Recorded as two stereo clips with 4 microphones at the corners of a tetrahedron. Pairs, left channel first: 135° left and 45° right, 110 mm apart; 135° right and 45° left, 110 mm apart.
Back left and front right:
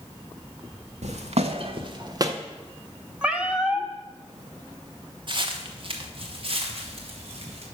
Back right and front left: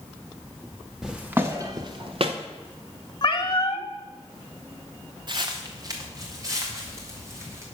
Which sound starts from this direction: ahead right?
Footsteps, at 1.0 s.